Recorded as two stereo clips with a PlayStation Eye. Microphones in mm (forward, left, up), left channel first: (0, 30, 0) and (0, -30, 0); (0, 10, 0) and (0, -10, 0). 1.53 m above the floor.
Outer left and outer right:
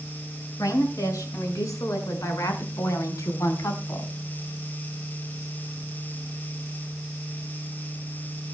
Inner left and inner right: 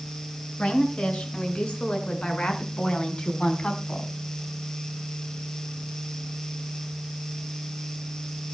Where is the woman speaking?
75° left (ahead or behind), 7.5 m; by 4.1 s 65° left (ahead or behind), 4.5 m.